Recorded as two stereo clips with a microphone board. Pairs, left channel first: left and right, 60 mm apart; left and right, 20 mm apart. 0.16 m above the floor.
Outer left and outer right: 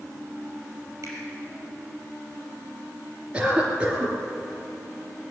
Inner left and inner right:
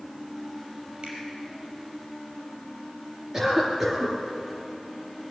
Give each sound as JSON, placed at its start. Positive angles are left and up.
{"t": 1.0, "sound": "a finger snap", "side_deg": -55, "distance_m": 4.5}
{"t": 3.3, "sound": "a cough", "side_deg": -15, "distance_m": 3.0}